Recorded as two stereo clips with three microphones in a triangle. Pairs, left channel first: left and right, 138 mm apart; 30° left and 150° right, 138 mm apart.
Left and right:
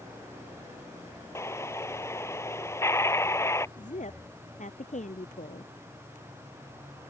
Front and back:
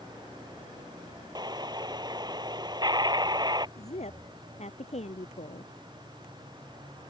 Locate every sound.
1.4 s an explosion: 155° left
3.8 s a woman speaking: 65° left